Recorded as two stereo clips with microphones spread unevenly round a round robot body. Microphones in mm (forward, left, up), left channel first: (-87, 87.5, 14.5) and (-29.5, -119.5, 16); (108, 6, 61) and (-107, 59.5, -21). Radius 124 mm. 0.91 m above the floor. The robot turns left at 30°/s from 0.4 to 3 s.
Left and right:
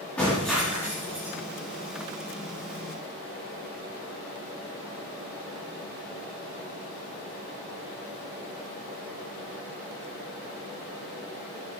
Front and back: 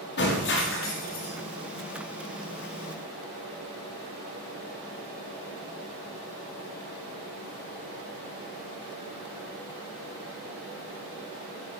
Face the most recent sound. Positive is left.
turn(degrees=-55)